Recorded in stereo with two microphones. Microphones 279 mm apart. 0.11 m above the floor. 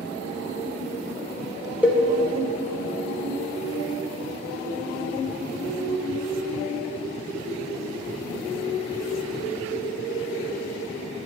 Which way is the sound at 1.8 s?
5° right (ahead or behind).